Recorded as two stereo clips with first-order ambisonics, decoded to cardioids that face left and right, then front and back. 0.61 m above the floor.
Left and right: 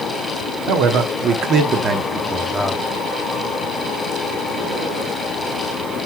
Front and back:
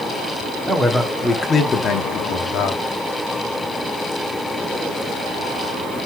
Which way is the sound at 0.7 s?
105° right.